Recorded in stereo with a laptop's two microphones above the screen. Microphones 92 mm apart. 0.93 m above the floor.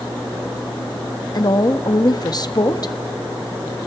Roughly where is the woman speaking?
Left.